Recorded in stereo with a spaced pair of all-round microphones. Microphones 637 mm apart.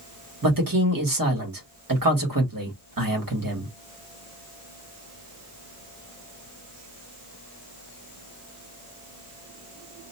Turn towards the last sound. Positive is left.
turn(degrees=-30)  # may be behind; listen again after turning